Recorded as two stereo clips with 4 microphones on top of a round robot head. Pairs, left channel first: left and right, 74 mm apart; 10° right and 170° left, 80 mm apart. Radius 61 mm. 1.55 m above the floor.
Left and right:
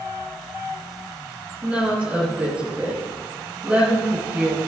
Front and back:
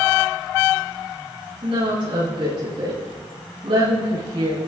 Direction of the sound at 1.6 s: 160° right.